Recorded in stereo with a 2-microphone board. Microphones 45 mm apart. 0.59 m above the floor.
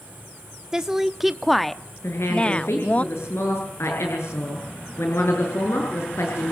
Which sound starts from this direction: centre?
A woman speaking, at 0.7 s.